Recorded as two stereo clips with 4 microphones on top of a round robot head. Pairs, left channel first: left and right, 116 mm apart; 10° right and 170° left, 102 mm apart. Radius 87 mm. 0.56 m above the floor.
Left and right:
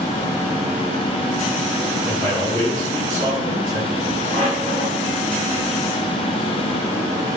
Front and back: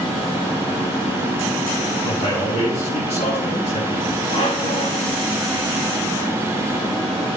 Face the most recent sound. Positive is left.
turn(degrees=10)